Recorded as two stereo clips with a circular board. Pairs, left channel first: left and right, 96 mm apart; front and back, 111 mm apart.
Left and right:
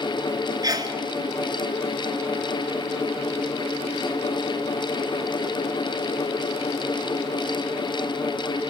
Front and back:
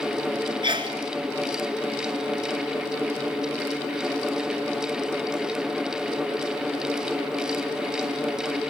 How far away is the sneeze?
About 3 m.